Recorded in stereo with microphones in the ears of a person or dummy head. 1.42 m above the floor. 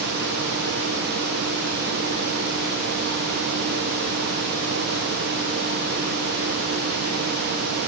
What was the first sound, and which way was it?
Only background noise.